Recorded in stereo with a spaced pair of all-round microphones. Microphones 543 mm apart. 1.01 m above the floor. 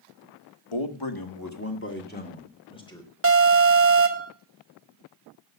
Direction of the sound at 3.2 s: 25° right (ahead or behind).